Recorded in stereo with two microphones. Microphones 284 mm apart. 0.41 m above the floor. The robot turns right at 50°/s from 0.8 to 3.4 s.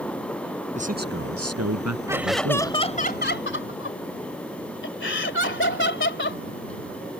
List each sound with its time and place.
0.8 s a man speaking: 155° right; by 2.8 s 55° right
2.1 s laughter: 15° right; by 6.4 s 55° left